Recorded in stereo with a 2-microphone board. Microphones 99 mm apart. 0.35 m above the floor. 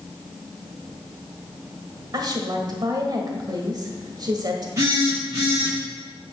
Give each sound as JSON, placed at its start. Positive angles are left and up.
{"t": 2.1, "sound": "a woman speaking", "side_deg": -45, "distance_m": 1.4}
{"t": 4.8, "sound": "a phone buzzing", "side_deg": -35, "distance_m": 4.5}